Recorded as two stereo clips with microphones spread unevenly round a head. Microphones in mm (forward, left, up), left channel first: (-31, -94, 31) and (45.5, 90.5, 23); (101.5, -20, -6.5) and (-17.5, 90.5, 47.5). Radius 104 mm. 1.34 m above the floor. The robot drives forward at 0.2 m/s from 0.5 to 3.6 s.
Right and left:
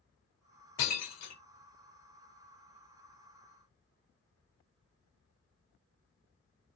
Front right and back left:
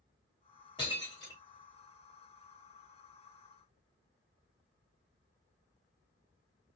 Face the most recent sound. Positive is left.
turn(degrees=-135)